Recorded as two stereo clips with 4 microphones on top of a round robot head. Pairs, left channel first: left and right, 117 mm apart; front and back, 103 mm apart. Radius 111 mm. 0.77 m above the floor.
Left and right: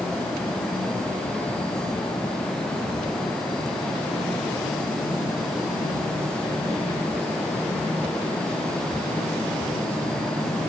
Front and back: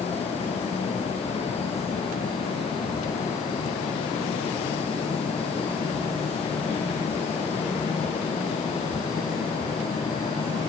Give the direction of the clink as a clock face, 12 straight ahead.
No clink in this recording.